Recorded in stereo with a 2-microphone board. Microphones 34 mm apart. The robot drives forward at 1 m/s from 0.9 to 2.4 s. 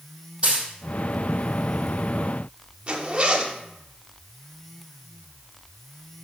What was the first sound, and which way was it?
A dropped coin, 35° right (ahead or behind).